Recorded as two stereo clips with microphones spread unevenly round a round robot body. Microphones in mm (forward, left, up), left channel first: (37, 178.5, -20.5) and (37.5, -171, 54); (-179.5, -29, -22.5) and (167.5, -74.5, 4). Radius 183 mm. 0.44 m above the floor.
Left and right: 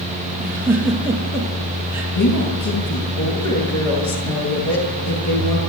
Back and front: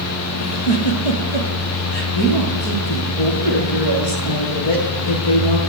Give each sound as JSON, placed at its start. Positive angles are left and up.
{"t": 0.4, "sound": "a giggle", "azimuth_deg": -175, "distance_m": 4.5}
{"t": 2.1, "sound": "a woman speaking", "azimuth_deg": 135, "distance_m": 9.5}